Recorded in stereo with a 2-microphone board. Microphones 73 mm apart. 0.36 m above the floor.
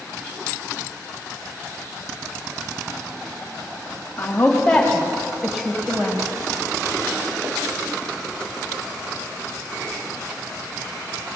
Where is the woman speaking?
25° left (ahead or behind), 1.6 m; by 6.2 s 20° right (ahead or behind), 1.8 m.